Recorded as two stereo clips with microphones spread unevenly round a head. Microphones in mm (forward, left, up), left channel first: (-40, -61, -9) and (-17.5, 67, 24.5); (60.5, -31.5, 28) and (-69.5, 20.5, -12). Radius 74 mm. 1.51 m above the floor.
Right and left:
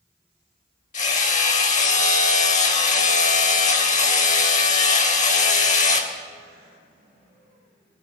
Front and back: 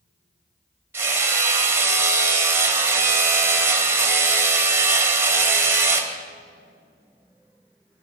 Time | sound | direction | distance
0.9 | hammering | 125° right | 2.5 m